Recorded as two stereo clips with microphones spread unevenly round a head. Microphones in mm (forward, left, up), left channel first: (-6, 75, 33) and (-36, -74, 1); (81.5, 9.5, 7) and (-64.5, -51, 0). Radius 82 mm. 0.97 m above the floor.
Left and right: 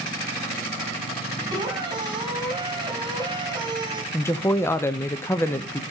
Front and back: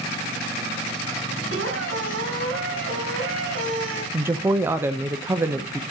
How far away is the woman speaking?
About 0.6 m.